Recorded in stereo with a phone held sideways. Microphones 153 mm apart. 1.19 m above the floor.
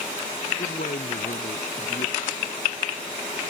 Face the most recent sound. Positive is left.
turn(degrees=75)  # may be behind; listen again after turning